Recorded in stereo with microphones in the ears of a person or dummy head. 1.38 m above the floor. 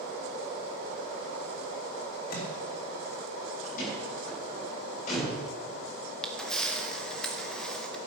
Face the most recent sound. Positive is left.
turn(degrees=5)  # may be behind; listen again after turning